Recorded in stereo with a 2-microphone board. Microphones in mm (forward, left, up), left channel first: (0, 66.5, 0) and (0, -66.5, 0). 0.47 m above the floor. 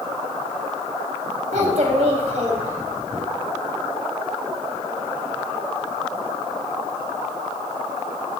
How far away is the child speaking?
About 2.5 m.